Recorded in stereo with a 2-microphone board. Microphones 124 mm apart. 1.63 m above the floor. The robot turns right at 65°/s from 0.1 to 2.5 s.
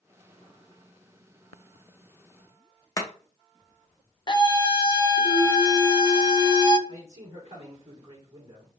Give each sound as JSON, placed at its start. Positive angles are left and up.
{"t": 3.0, "sound": "chopping", "side_deg": 25, "distance_m": 0.8}
{"t": 4.3, "sound": "a scream", "side_deg": 35, "distance_m": 0.6}
{"t": 6.9, "sound": "a man speaking", "side_deg": -55, "distance_m": 2.5}